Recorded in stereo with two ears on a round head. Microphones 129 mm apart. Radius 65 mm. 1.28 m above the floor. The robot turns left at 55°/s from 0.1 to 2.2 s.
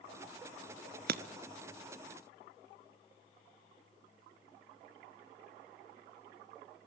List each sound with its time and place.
1.1 s breaking glass: 70° right (ahead or behind), 1.4 m; by 1.2 s 65° right (ahead or behind), 1.4 m